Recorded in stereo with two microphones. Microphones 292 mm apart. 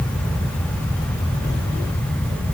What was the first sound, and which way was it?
Only background noise.